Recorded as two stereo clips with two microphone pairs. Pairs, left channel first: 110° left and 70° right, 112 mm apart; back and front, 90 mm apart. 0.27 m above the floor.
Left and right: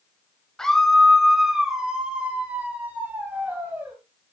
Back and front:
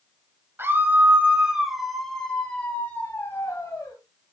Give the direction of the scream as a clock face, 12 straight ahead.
11 o'clock.